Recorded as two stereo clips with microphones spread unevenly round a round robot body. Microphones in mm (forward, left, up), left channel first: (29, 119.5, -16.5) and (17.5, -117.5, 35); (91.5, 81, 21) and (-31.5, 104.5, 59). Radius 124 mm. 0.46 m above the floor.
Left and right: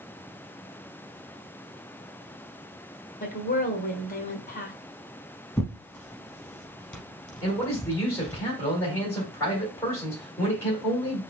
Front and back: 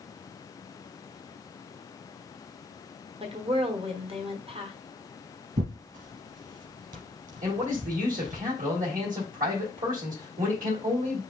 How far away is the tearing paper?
About 0.7 m.